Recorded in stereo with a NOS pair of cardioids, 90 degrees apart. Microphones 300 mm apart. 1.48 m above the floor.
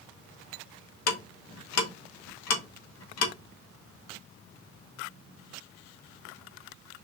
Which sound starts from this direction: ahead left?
Ticking, at 1.1 s.